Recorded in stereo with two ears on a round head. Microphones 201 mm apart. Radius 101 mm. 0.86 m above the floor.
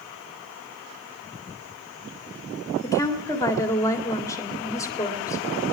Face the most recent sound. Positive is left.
turn(degrees=15)  # may be behind; listen again after turning